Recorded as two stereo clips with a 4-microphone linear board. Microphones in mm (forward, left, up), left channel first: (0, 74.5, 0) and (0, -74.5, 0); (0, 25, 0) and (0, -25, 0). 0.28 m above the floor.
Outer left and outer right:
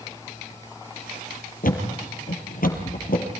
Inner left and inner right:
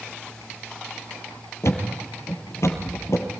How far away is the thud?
About 4 m.